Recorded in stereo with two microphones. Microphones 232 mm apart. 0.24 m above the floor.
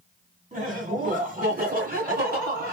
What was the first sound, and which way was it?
Laughter, 35° right (ahead or behind).